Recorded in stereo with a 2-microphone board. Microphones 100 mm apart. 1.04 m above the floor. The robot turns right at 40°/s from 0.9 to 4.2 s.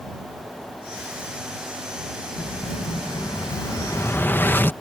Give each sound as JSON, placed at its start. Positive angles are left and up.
{"t": 2.4, "sound": "an explosion", "azimuth_deg": 80}